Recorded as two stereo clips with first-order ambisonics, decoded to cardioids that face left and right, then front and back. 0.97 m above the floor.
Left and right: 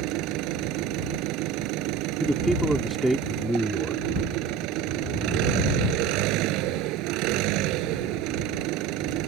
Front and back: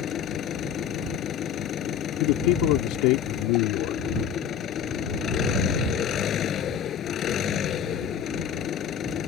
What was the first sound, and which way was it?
An engine running, 60° right.